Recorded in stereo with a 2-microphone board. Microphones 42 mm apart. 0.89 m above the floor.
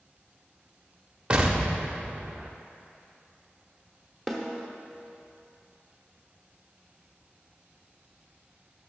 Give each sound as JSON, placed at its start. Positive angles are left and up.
{"t": 1.3, "sound": "an explosion", "side_deg": -25, "distance_m": 0.7}
{"t": 4.3, "sound": "a snare drum", "side_deg": 5, "distance_m": 0.9}